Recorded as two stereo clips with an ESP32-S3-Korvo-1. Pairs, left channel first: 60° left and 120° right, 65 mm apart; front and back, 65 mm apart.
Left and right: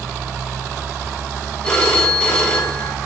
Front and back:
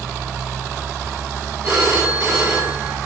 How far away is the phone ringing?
About 1.1 m.